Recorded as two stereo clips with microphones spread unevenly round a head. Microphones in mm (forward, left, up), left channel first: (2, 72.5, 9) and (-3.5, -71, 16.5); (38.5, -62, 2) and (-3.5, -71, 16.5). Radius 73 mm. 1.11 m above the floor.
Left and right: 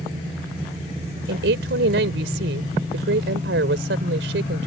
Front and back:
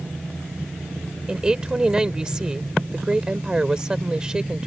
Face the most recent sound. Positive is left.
turn(degrees=-100)